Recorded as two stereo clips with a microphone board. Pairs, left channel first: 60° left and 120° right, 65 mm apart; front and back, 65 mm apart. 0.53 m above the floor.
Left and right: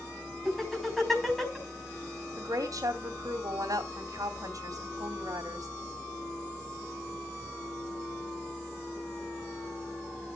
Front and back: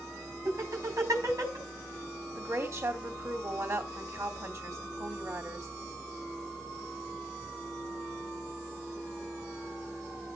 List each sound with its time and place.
0.5 s laughter: 145° left, 4.5 m
2.4 s a woman speaking: 140° right, 2.5 m